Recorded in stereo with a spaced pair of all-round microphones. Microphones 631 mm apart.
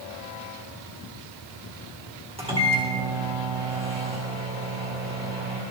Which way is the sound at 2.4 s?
10° right (ahead or behind).